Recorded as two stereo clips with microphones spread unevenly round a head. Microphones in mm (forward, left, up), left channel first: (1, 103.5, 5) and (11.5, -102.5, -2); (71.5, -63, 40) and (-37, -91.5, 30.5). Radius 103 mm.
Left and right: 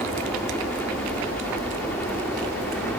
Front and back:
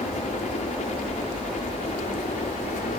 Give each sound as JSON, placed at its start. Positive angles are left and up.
{"t": 0.0, "sound": "a helicopter", "azimuth_deg": 10}